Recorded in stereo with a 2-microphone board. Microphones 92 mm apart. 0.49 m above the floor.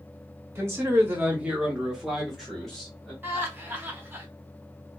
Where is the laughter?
25° right (ahead or behind), 0.7 m.